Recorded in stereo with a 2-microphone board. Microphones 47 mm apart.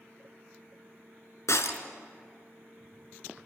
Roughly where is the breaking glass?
Left.